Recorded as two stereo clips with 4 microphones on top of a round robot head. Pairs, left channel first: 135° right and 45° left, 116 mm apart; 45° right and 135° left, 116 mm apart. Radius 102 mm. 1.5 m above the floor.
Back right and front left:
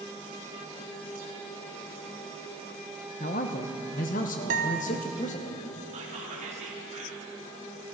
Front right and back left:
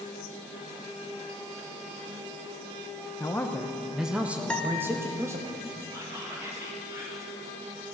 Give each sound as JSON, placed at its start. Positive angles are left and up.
{"t": 3.2, "sound": "a man speaking", "azimuth_deg": -110, "distance_m": 0.8}
{"t": 4.5, "sound": "a guitar", "azimuth_deg": 40, "distance_m": 0.9}
{"t": 5.9, "sound": "whispering", "azimuth_deg": 70, "distance_m": 3.0}